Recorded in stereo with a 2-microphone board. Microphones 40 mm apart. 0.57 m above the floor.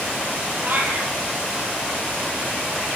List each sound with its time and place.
0.6 s a cat meowing: 50° right (ahead or behind), 8 m